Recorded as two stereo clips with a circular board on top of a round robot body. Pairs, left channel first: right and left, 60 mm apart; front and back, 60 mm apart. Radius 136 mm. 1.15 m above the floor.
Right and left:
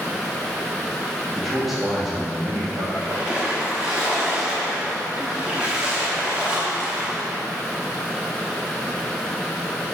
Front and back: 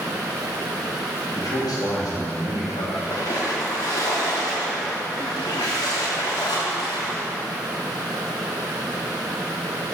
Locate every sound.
1.4 s a man speaking: 5° right, 3 m; by 2.8 s 20° left, 3 m
2.9 s a splash: 15° left, 0.9 m